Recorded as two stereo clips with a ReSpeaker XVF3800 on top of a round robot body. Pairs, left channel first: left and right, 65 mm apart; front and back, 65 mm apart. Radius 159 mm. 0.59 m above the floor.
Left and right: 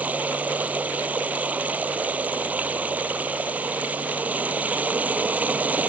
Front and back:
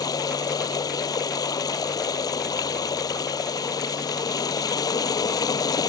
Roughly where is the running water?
Ahead.